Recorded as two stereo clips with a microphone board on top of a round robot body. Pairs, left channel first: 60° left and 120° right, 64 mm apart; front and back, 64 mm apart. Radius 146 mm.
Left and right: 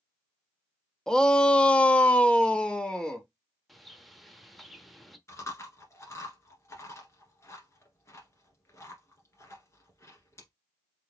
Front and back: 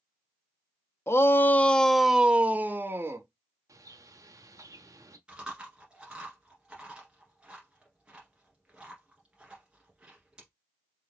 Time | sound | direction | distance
1.1 | a shout | 15° right | 0.8 m
3.7 | a bird | 150° left | 0.9 m
5.3 | chewing | 105° left | 1.5 m